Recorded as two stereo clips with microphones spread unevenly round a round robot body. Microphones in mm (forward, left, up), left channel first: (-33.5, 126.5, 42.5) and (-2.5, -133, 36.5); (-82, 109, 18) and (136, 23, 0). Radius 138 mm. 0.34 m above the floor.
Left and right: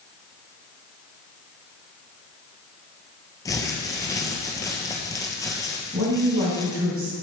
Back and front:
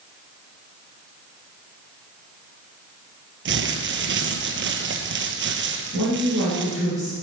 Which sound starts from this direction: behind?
A woman speaking, at 5.9 s.